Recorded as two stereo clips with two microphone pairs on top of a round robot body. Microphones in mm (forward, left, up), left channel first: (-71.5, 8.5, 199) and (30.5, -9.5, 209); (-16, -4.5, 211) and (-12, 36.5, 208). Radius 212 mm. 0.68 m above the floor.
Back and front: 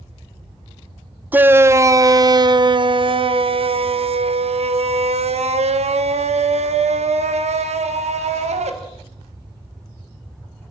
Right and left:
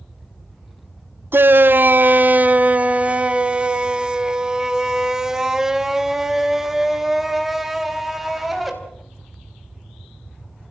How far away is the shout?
About 1.4 m.